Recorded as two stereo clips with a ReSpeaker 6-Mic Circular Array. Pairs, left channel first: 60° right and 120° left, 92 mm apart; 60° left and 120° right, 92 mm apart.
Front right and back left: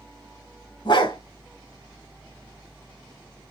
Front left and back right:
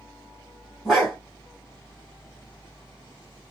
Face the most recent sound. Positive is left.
turn(degrees=-30)